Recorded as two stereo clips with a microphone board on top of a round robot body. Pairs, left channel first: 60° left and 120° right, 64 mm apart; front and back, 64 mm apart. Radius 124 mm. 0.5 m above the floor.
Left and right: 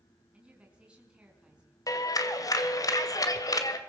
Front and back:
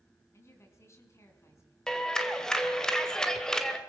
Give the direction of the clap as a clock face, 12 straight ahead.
9 o'clock.